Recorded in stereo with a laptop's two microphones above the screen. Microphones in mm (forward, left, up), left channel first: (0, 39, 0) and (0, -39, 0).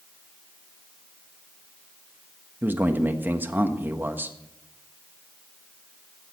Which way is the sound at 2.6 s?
25° right (ahead or behind).